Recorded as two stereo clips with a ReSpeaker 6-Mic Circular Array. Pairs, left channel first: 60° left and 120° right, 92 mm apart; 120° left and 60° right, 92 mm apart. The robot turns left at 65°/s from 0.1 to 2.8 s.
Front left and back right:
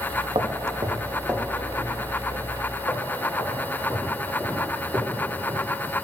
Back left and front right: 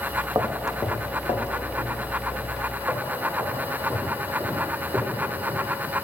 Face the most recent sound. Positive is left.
turn(degrees=5)